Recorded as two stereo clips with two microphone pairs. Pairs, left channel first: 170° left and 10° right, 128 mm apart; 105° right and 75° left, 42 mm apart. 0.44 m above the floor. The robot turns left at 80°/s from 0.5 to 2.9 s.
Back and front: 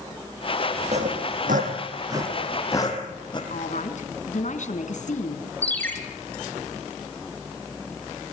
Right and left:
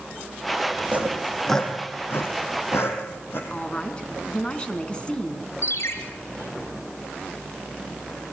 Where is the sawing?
25° left, 4.5 m; by 3.4 s 135° right, 4.5 m.